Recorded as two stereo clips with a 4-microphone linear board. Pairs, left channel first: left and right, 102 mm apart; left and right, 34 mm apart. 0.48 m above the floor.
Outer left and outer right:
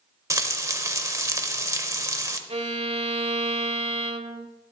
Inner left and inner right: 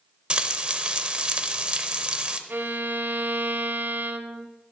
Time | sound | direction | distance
0.3 | frying | 30° right (ahead or behind) | 0.7 m
2.5 | a violin | 85° right | 0.9 m